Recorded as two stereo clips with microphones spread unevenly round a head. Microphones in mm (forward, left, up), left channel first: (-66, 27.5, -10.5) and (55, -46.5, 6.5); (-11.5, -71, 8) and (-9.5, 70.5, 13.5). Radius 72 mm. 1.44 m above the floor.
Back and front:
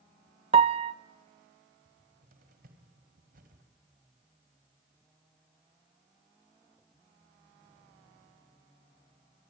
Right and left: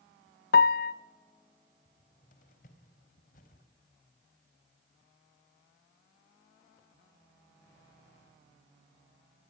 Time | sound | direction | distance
0.5 | a piano | 80° right | 0.7 m
1.9 | a cupboard door | 55° right | 3.5 m